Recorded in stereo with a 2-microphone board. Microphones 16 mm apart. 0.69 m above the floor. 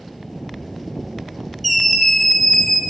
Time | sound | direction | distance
1.6 | a scream | 5° left (ahead or behind) | 0.8 m